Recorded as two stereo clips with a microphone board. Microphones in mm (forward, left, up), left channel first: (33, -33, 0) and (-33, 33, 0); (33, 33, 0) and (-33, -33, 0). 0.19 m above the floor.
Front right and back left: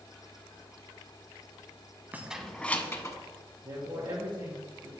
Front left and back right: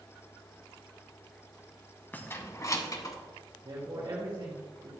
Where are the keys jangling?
90° left, 0.9 m; by 3.1 s 5° left, 1.3 m.